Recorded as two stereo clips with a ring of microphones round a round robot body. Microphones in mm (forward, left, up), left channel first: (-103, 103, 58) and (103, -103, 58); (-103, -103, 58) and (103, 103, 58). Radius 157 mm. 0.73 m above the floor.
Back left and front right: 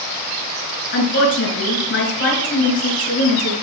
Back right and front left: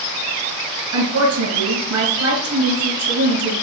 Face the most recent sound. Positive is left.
turn(degrees=85)